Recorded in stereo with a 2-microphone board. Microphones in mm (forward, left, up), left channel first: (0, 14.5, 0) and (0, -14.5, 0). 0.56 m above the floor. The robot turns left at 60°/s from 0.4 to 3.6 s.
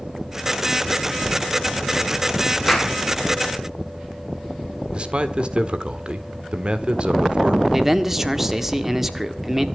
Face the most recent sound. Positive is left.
turn(degrees=-10)  # may be behind; listen again after turning